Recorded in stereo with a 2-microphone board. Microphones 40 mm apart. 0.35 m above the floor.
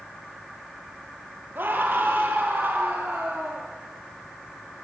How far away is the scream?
About 7 m.